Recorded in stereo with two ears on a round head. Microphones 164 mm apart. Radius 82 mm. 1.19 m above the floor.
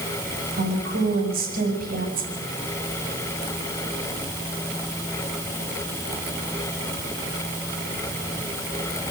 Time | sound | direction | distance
0.6 | a woman speaking | 55° right (ahead or behind) | 6.5 m